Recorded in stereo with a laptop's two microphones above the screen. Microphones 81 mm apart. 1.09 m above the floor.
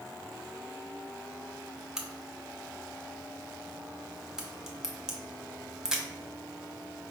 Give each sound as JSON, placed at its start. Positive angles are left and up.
{"t": 2.0, "sound": "a crack", "side_deg": -5, "distance_m": 0.6}